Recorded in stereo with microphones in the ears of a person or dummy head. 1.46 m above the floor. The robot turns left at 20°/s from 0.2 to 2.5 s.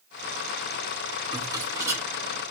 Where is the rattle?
25° right (ahead or behind), 2.5 m; by 2.0 s 10° right (ahead or behind), 2.5 m.